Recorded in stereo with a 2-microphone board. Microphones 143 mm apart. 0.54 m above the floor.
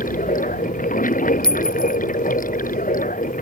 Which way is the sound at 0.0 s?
70° left (ahead or behind).